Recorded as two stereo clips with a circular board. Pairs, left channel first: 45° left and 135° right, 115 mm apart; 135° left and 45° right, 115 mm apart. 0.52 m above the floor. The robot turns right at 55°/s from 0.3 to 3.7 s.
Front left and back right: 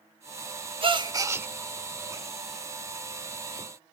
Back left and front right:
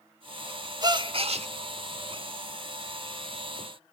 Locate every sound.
0.8 s a gasp: 100° right, 0.7 m; by 1.5 s 60° right, 0.7 m